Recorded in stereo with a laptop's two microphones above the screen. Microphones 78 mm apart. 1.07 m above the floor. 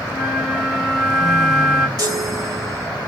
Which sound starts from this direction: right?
A chime, at 2.0 s.